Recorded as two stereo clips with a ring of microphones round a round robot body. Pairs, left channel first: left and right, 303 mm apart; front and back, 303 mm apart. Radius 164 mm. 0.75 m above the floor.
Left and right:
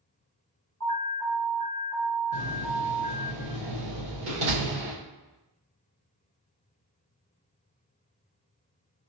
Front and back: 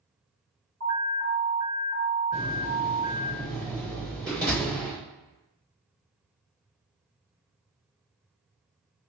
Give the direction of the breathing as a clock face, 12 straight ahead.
No breathing in this recording.